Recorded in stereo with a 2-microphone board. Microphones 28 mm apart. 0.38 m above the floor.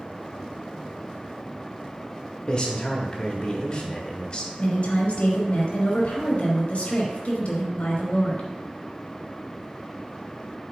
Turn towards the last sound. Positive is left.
turn(degrees=50)  # may be behind; listen again after turning